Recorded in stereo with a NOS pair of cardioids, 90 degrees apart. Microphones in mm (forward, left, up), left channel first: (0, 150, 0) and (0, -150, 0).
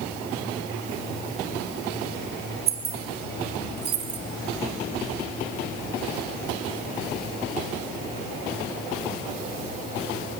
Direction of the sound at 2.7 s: 50° right.